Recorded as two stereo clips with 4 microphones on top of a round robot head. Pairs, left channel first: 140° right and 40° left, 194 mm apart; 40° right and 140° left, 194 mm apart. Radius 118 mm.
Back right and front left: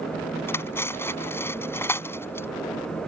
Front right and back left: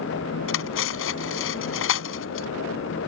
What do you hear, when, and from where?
0.5 s cutlery clinking: 60° right